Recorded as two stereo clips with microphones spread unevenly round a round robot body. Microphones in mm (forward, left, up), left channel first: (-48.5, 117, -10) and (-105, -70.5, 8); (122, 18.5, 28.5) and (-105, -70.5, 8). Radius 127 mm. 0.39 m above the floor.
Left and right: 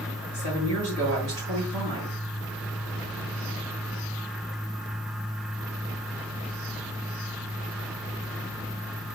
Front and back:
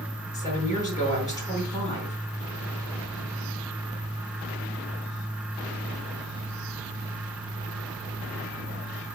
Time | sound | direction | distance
0.3 | a woman speaking | 55° right | 5 m